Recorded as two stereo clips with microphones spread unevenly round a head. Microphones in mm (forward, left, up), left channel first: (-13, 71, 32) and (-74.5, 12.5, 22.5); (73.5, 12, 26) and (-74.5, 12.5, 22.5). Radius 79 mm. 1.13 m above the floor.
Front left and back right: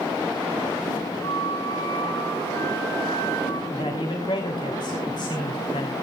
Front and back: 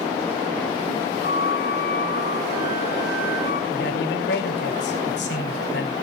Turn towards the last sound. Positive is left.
turn(degrees=-10)